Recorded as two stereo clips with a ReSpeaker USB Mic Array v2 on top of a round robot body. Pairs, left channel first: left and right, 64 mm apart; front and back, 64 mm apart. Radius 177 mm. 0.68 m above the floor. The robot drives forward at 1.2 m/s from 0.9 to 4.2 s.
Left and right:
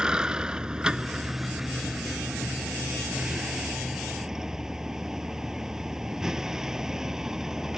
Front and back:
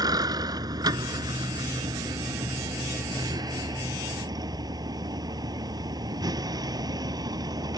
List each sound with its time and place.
0.0 s a vehicle: 170° right; by 7.8 s 175° right